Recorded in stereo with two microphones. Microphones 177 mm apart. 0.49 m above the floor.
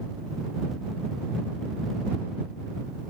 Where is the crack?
I don't hear a crack.